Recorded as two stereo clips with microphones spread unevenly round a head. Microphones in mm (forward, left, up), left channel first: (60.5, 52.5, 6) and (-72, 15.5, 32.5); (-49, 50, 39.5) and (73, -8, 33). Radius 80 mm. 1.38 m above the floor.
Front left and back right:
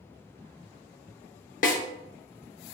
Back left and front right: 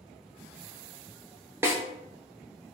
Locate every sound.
1.6 s a snare drum: 50° left, 0.5 m